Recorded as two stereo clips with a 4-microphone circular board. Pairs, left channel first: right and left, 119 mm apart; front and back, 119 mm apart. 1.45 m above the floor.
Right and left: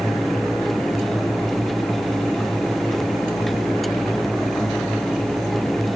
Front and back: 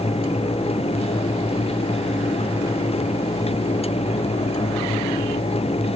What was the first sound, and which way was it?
Only background noise.